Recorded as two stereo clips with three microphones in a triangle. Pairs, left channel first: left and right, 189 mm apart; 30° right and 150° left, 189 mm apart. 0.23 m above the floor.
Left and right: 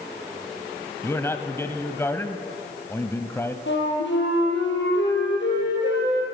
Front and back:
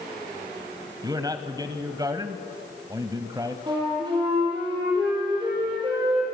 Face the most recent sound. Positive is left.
turn(degrees=85)